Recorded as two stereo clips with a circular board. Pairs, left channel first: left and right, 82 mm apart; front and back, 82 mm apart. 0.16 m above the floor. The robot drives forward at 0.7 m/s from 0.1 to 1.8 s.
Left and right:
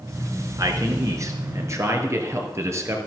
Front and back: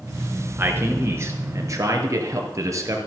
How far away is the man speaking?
About 2 m.